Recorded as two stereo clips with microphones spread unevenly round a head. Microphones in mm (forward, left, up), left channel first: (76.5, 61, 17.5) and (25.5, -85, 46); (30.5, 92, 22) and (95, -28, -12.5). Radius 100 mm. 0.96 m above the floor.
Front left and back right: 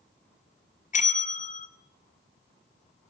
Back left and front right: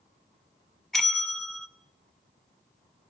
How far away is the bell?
About 2 m.